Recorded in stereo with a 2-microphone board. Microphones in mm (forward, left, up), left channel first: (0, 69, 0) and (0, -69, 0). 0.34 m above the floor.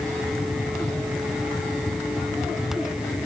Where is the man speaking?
No man speaking in this recording.